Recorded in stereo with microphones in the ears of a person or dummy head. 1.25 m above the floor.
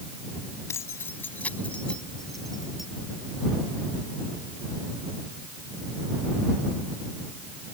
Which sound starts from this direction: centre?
Keys jangling, at 0.7 s.